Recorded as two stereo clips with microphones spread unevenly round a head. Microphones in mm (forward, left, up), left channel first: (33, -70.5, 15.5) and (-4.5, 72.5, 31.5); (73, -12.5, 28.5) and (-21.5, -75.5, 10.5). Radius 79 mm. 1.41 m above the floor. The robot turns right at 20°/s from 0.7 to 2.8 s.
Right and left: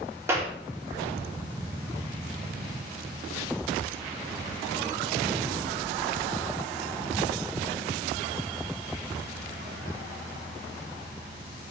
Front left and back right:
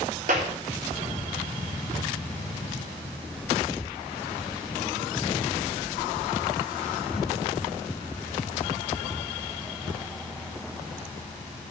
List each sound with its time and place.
0.3 s a clap: straight behind, 3.5 m